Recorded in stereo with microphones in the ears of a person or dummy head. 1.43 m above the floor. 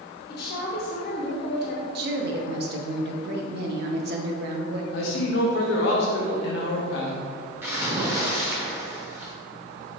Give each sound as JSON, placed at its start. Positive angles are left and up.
{"t": 0.3, "sound": "a woman speaking", "side_deg": 50, "distance_m": 0.6}
{"t": 1.9, "sound": "a woman speaking", "side_deg": -60, "distance_m": 0.5}
{"t": 4.9, "sound": "a man speaking", "side_deg": 70, "distance_m": 0.7}
{"t": 7.6, "sound": "a splash", "side_deg": -10, "distance_m": 0.5}